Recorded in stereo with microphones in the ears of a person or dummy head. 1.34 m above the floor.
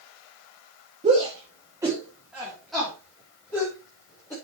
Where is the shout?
30° right (ahead or behind), 2.5 m; by 4.3 s 15° left (ahead or behind), 6 m.